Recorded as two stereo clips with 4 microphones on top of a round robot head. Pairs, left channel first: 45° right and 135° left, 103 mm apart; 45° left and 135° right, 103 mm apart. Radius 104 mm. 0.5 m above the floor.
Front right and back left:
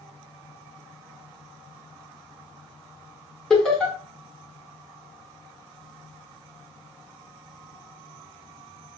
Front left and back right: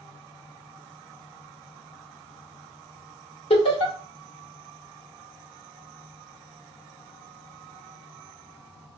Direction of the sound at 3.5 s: 40° left.